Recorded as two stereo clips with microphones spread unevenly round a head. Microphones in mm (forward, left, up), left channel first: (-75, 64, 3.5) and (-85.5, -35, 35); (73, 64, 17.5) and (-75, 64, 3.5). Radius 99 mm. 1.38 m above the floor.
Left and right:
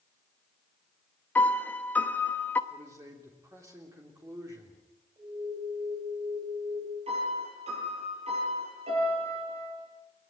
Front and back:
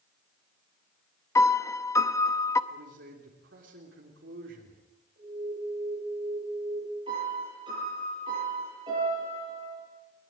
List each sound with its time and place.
1.4 s a piano: 20° right, 0.7 m
2.7 s a man speaking: 155° right, 3.5 m
5.2 s an alarm: 140° right, 10 m
7.1 s a piano: 110° right, 9 m